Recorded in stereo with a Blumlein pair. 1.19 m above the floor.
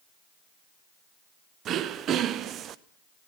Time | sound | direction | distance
1.6 | throat clearing | 30° right | 0.6 m